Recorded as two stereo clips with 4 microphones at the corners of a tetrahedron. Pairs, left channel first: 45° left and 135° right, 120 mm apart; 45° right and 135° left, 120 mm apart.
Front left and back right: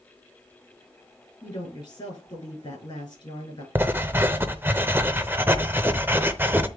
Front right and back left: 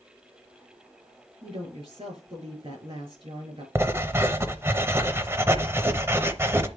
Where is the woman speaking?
95° left, 6.5 m.